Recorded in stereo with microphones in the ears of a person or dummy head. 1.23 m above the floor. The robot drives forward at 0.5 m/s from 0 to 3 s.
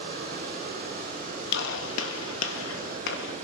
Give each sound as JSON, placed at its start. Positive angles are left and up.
{"t": 0.0, "sound": "running water", "side_deg": -50, "distance_m": 4.5}
{"t": 1.5, "sound": "a gunshot", "side_deg": 55, "distance_m": 0.9}